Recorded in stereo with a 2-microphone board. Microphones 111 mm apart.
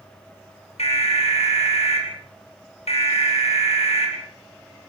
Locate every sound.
0.8 s an alarm: 70° left (ahead or behind), 8 m